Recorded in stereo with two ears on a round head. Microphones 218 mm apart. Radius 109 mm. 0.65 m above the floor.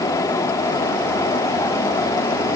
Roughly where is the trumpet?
I don't hear a trumpet.